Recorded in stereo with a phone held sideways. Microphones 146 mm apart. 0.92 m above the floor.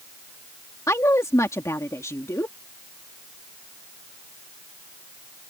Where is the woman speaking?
20° left (ahead or behind).